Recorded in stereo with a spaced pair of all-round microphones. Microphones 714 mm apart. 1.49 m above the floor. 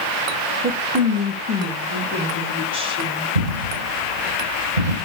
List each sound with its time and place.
0.6 s a woman speaking: 10° right (ahead or behind), 1.3 m; by 3.2 s 5° right (ahead or behind), 5.5 m
3.4 s a dropped coin: 75° right (ahead or behind), 7.5 m